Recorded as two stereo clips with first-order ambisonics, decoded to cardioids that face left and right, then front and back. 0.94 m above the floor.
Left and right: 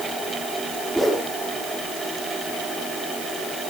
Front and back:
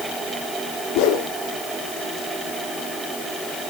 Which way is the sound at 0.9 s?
Straight ahead.